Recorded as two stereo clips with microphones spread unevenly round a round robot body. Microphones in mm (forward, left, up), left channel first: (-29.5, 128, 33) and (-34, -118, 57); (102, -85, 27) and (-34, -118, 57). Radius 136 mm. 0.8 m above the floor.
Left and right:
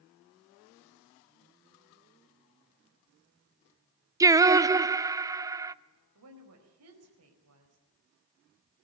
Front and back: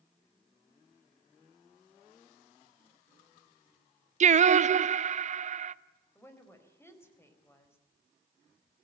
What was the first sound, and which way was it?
Singing, 170° right.